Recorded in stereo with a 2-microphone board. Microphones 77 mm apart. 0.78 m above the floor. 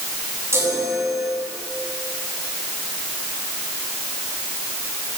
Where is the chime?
35° right (ahead or behind), 7 m.